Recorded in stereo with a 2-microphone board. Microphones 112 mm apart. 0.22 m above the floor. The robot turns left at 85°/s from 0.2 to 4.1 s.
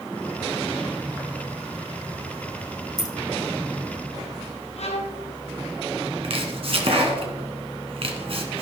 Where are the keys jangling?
40° left (ahead or behind), 1.2 m; by 3.1 s 35° left (ahead or behind), 1.2 m.